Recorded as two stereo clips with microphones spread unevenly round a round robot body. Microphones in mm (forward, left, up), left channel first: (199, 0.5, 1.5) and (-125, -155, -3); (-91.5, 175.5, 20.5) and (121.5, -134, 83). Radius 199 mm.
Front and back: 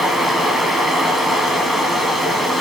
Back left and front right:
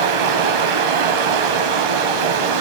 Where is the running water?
65° right, 1.9 m.